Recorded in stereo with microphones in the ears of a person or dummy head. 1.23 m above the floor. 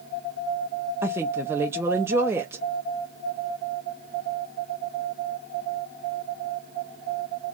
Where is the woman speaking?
15° right (ahead or behind), 0.5 m.